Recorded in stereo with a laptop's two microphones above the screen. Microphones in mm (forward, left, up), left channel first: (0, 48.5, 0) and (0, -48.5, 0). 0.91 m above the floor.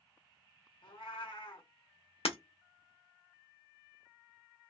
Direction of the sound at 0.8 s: 65° left (ahead or behind).